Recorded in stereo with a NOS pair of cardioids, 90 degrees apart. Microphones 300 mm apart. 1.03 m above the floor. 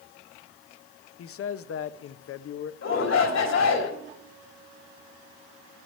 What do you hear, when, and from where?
1.2 s a man speaking: 50° left, 0.7 m
2.8 s a shout: 60° left, 3.5 m